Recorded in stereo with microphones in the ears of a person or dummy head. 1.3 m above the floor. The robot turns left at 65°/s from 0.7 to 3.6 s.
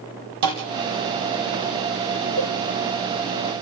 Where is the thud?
55° right (ahead or behind), 3.5 m.